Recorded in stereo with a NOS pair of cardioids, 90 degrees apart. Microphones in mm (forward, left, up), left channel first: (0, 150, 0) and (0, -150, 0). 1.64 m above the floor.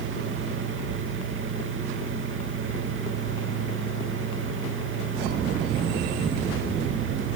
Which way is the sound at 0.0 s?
45° right.